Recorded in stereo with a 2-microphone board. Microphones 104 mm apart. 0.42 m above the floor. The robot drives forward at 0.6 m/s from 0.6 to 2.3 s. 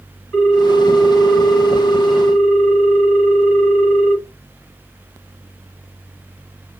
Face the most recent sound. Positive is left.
turn(degrees=30)  # may be behind; listen again after turning